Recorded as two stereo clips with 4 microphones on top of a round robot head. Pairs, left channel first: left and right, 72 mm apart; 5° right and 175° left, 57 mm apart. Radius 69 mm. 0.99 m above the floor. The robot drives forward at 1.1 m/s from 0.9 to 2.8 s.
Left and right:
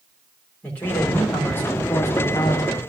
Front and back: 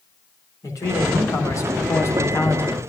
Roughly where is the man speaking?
Ahead.